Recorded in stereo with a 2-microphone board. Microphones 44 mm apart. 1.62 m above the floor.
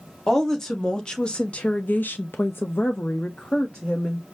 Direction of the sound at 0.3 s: 10° left (ahead or behind).